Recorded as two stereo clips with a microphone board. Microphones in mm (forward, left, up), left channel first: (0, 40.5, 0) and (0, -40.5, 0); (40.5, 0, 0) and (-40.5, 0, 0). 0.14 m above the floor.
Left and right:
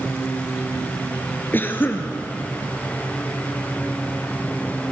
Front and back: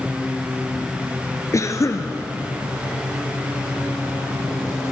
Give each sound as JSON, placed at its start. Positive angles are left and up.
{"t": 1.5, "sound": "a cough", "azimuth_deg": 35, "distance_m": 1.8}